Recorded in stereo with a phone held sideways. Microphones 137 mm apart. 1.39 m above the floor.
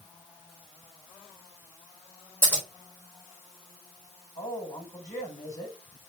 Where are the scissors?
15° left (ahead or behind), 3.5 m.